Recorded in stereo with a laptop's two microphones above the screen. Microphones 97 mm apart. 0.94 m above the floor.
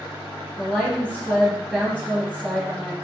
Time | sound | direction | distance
0.6 | a woman speaking | 10° left (ahead or behind) | 1.1 m